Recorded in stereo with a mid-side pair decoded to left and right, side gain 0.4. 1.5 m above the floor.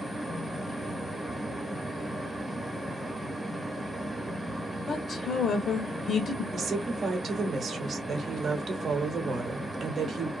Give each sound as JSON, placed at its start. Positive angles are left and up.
{"t": 0.0, "sound": "a fan", "azimuth_deg": -10, "distance_m": 1.0}
{"t": 4.9, "sound": "a woman speaking", "azimuth_deg": 50, "distance_m": 0.6}
{"t": 6.5, "sound": "a woman speaking", "azimuth_deg": -55, "distance_m": 0.8}